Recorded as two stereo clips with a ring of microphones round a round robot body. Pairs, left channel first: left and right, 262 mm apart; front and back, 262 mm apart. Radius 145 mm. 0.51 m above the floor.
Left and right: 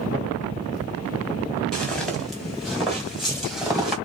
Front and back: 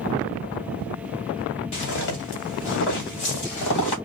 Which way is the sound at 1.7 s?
5° left.